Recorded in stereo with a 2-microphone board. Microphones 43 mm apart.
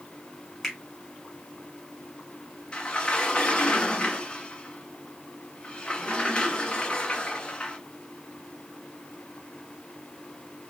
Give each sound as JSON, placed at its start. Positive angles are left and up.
{"t": 0.6, "sound": "a finger snap", "side_deg": 5, "distance_m": 2.0}
{"t": 2.7, "sound": "a sliding door", "side_deg": 25, "distance_m": 1.0}